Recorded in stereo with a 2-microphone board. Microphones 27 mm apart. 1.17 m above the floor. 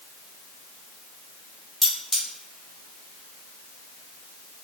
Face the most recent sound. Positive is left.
turn(degrees=-5)  # may be behind; listen again after turning